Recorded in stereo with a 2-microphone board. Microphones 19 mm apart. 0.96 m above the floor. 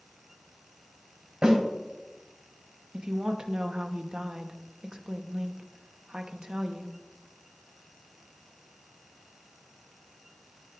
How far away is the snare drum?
About 4 m.